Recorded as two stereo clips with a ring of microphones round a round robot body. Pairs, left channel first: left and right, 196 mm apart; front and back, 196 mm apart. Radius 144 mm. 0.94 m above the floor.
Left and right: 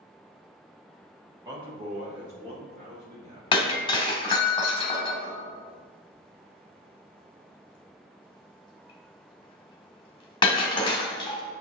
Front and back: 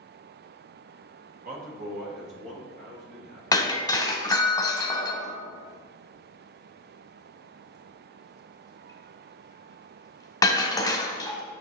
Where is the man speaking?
160° right, 1.0 m; by 4.5 s 130° right, 4 m.